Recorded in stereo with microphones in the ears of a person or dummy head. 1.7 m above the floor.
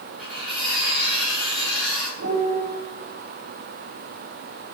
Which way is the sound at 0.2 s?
5° right (ahead or behind).